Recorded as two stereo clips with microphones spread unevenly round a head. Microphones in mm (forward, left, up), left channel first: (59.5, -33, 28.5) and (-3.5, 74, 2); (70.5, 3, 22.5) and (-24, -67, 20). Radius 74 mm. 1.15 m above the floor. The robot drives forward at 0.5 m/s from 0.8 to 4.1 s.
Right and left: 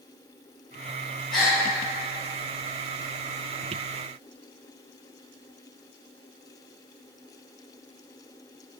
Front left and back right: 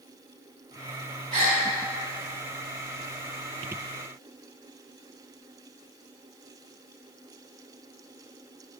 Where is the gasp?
120° right, 3 m.